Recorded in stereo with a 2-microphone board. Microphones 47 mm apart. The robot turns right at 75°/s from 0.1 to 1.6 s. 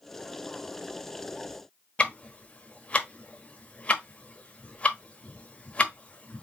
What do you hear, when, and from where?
2.0 s ticking: 30° left (ahead or behind), 1.1 m